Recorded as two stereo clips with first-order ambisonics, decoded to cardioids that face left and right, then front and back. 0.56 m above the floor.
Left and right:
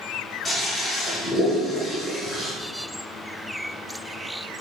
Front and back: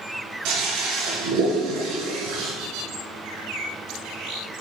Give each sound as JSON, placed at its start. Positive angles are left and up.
{"t": 0.5, "sound": "a toilet flushing", "azimuth_deg": 175, "distance_m": 2.5}